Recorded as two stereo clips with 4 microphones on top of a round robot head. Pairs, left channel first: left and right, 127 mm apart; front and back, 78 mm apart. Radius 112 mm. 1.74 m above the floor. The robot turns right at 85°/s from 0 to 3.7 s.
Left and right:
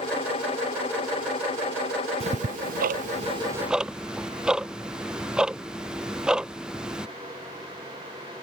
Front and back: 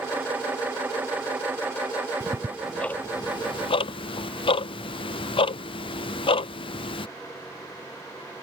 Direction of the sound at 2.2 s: 135° right.